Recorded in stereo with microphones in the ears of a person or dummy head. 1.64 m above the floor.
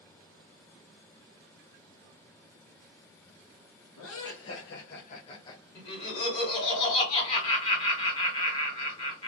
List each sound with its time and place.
4.0 s laughter: 85° left, 1.2 m; by 5.7 s 15° left (ahead or behind), 0.7 m
5.8 s laughter: 35° left (ahead or behind), 1.9 m